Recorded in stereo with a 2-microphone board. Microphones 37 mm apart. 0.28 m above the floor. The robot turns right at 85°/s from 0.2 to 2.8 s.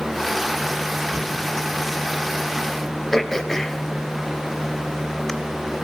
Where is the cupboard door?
30° right (ahead or behind), 3.5 m; by 1.5 s 55° right (ahead or behind), 3.5 m.